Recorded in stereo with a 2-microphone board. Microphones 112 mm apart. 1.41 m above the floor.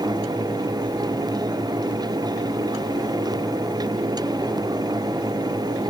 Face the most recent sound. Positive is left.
No sound to turn to.